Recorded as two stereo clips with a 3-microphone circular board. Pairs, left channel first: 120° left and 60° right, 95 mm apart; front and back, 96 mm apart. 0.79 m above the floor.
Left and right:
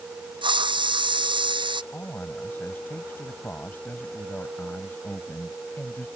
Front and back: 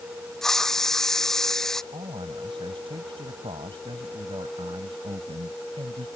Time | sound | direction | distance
0.4 | a hiss | 85° right | ?
1.9 | a man speaking | 175° right | ?